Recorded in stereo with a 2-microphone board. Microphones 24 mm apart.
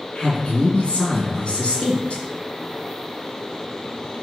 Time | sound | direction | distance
0.1 | a man speaking | 45° left (ahead or behind) | 2 m